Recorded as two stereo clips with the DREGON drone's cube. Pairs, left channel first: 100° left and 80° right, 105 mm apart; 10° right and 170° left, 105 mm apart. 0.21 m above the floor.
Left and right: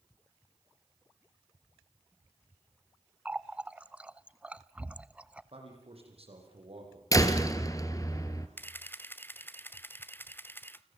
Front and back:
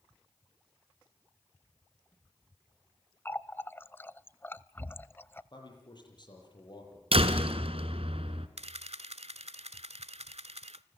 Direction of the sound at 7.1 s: 155° left.